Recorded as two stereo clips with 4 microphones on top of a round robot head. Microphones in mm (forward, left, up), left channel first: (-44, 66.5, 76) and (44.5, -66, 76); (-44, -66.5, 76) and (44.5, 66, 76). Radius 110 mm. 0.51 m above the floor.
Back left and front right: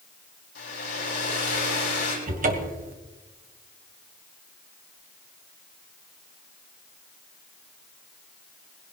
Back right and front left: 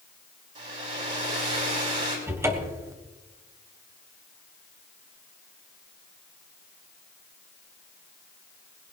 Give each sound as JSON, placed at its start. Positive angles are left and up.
{"t": 0.6, "sound": "a hair dryer", "azimuth_deg": 100, "distance_m": 6.0}
{"t": 2.3, "sound": "a cupboard door", "azimuth_deg": -20, "distance_m": 1.5}